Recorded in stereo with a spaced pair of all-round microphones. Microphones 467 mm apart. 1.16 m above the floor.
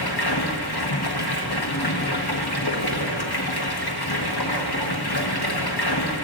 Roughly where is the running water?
Left.